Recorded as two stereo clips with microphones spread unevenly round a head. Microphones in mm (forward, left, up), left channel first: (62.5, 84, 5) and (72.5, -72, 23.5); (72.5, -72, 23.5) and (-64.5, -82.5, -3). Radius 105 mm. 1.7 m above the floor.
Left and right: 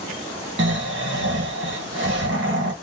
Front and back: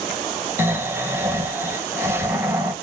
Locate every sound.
0.6 s snoring: 100° right, 1.3 m